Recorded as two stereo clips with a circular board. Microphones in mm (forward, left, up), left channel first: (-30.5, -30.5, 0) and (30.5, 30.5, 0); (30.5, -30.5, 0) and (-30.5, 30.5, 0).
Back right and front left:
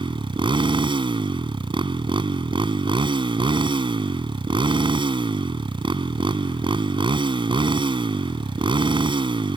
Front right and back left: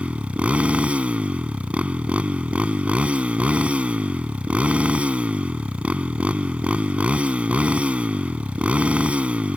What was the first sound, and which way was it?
A motorcycle, 60° left.